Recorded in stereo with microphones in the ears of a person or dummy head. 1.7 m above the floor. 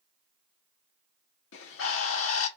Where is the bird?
70° left (ahead or behind), 1.3 m.